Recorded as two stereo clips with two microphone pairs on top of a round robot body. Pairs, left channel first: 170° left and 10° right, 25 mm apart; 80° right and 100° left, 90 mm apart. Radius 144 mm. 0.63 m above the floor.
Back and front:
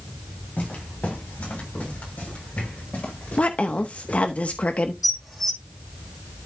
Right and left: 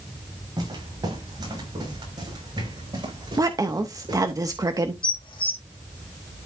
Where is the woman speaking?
145° left, 1.1 m.